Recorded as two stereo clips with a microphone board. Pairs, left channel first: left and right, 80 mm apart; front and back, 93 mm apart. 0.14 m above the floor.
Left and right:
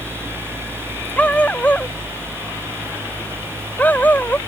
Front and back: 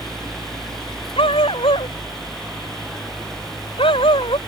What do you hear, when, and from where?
1.2 s a dog barking: 15° left; by 4.4 s 20° left